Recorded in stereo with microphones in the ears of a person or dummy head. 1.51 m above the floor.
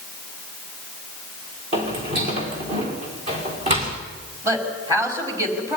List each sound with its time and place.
1.7 s footsteps: 40° right (ahead or behind), 5 m
4.4 s a woman speaking: 25° right (ahead or behind), 5 m